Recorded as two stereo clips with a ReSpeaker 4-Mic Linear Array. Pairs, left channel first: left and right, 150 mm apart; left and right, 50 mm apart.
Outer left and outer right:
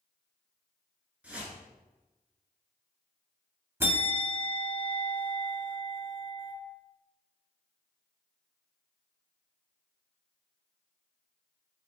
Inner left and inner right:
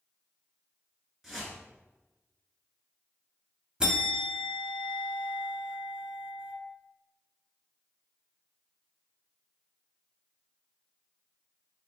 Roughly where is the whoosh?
Centre.